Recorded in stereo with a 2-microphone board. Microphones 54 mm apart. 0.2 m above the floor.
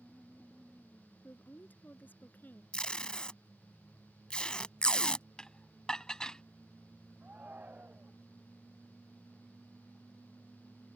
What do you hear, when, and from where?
1.2 s a woman speaking: 35° left (ahead or behind)
2.7 s tape being pulled: 20° left (ahead or behind)
5.4 s dishes clattering: 15° left (ahead or behind)
7.2 s a shout: 30° right (ahead or behind)